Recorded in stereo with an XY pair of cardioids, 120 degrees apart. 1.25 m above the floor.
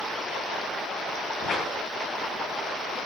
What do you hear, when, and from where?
1.4 s a whoosh: 50° left, 7.5 m